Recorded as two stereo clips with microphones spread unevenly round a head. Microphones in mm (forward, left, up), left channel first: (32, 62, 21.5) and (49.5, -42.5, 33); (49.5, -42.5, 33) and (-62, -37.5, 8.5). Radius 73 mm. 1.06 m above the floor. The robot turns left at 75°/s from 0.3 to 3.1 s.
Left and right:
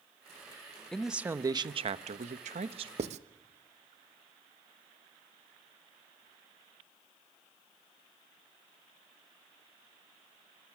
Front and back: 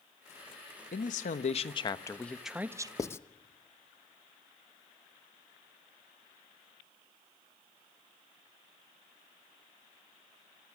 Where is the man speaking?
20° left, 1.1 m; by 2.9 s 130° right, 1.1 m.